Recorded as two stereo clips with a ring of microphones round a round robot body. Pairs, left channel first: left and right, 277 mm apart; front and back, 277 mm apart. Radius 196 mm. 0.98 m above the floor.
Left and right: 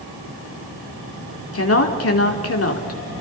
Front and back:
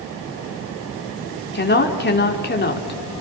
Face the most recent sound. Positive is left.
turn(degrees=55)